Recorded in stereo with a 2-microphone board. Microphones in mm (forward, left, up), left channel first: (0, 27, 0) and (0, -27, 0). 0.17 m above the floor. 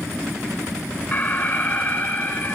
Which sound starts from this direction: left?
An alarm, at 1.1 s.